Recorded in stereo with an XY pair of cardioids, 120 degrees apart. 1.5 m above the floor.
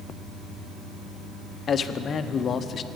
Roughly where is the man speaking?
Ahead left.